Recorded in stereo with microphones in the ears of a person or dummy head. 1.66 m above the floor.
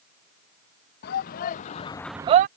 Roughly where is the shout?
Left.